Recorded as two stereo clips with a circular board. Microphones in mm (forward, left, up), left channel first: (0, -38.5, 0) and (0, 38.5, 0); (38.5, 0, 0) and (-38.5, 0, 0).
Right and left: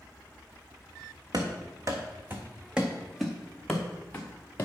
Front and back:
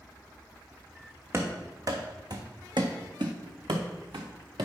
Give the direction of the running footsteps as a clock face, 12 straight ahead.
8 o'clock.